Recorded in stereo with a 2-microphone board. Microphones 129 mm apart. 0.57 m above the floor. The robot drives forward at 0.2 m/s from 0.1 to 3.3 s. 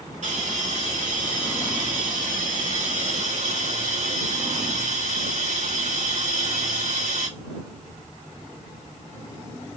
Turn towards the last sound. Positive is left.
turn(degrees=-70)  # may be behind; listen again after turning